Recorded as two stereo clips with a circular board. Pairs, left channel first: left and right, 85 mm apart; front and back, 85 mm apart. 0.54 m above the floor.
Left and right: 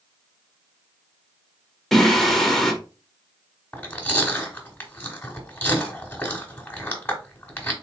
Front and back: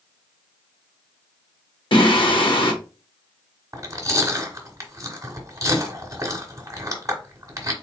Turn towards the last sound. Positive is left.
turn(degrees=150)